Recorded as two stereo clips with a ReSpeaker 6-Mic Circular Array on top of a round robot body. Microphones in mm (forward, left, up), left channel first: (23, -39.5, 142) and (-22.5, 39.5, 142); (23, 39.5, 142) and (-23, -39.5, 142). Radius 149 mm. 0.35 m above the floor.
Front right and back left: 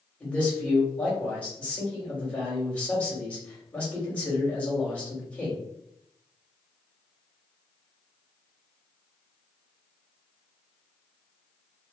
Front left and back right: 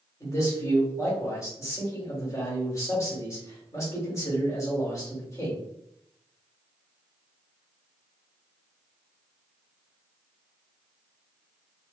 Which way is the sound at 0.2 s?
10° left.